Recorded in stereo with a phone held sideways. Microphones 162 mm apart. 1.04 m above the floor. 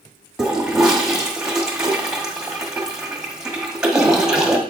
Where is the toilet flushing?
5° right (ahead or behind), 1.6 m.